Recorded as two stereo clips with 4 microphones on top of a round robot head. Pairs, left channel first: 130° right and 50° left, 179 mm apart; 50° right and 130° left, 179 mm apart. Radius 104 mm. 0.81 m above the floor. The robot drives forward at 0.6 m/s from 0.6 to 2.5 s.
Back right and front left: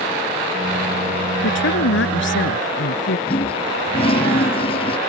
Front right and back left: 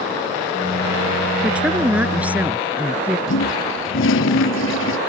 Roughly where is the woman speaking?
Behind right.